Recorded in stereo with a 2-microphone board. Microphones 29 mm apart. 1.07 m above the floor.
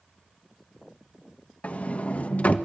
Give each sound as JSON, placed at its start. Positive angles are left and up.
{"t": 1.6, "sound": "a sliding door", "side_deg": 50, "distance_m": 1.3}